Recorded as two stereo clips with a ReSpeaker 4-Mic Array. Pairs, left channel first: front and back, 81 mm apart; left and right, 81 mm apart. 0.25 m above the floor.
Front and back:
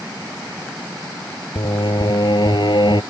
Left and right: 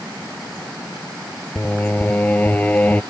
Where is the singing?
20° left.